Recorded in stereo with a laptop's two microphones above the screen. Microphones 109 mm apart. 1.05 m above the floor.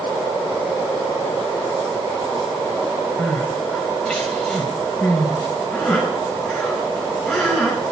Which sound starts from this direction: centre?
Crying, at 3.2 s.